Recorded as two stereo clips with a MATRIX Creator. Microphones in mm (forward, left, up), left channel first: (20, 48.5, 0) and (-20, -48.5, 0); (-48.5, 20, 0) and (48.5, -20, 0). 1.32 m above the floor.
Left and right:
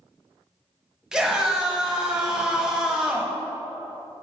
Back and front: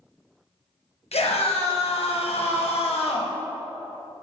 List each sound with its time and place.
1.1 s a scream: 165° left, 1.1 m